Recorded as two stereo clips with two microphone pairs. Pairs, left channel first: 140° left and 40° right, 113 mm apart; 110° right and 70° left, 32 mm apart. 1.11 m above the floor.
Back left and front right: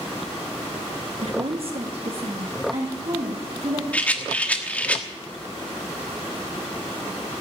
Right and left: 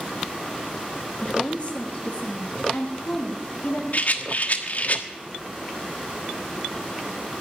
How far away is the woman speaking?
About 0.8 m.